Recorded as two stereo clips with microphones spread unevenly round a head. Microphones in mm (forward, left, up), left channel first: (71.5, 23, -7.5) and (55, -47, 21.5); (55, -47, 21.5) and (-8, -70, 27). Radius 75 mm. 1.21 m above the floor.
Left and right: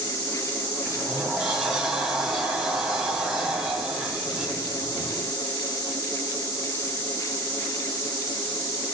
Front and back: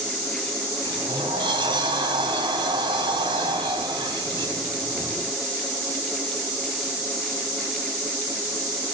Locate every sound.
0.8 s a sliding door: 170° left, 1.6 m